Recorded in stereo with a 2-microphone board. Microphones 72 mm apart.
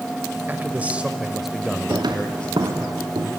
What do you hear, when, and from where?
0.5 s a man speaking: 25° right (ahead or behind), 1.5 m; by 2.9 s 25° left (ahead or behind), 2.0 m
1.9 s footsteps: 75° right (ahead or behind), 3 m; by 3.3 s 80° right, 3.5 m